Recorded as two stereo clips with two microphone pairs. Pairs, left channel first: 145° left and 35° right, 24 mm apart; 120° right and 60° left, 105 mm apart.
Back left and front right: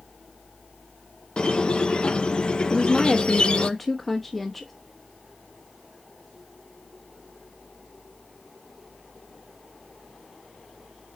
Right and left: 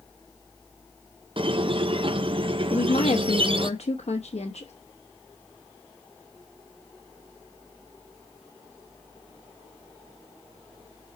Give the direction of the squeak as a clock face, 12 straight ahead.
9 o'clock.